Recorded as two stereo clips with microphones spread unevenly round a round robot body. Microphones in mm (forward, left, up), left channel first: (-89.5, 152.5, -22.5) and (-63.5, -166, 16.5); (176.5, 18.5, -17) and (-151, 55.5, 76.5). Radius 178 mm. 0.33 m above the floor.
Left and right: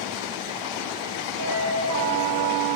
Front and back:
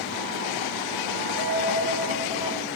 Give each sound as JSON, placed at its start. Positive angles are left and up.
{"t": 1.4, "sound": "a dropped coin", "azimuth_deg": -35, "distance_m": 2.5}